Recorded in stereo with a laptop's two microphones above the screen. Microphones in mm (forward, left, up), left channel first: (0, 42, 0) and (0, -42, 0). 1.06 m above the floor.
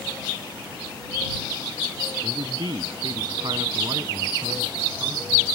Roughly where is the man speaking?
Right.